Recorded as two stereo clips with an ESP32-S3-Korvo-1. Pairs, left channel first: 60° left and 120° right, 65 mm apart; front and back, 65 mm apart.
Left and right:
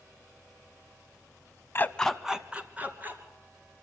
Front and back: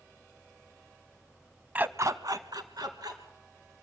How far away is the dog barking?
About 0.6 m.